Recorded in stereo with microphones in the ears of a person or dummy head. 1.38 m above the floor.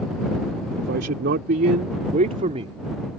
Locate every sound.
0.8 s a man speaking: 65° right (ahead or behind); by 2.8 s 35° right (ahead or behind)